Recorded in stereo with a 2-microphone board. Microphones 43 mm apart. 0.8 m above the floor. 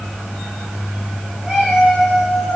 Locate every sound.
1.4 s a cat meowing: 15° right (ahead or behind), 4 m; by 2.6 s 10° right (ahead or behind), 4.5 m